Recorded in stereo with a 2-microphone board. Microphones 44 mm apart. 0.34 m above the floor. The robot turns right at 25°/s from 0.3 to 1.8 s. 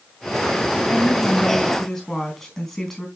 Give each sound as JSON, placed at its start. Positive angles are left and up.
{"t": 0.9, "sound": "a woman speaking", "side_deg": 30, "distance_m": 3.5}